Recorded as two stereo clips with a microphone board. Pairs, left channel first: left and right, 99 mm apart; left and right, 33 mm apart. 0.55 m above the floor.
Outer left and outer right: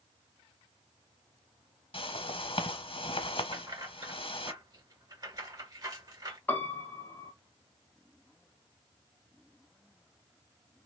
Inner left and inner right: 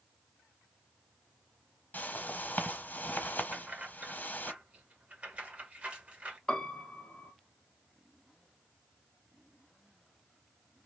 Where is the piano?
20° left (ahead or behind), 0.9 m.